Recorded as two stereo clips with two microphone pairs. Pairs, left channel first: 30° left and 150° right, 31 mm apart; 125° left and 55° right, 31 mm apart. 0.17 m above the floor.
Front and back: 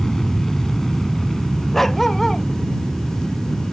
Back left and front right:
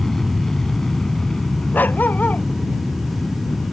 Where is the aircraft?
80° left; by 3.7 s 120° left.